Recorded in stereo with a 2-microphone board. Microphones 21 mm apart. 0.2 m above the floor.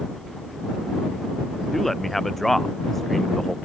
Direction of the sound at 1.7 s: 5° left (ahead or behind).